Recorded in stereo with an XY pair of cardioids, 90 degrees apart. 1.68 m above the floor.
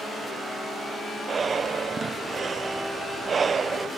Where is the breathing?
45° right.